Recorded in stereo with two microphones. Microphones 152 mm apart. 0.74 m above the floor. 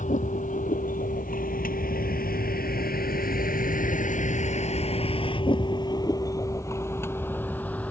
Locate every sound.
0.0 s a vehicle: 60° left (ahead or behind); by 7.9 s 10° left (ahead or behind)